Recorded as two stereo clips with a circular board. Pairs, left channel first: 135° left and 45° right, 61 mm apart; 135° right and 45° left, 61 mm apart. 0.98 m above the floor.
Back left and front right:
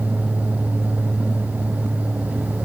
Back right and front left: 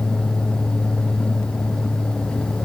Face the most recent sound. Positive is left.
No sound to turn to.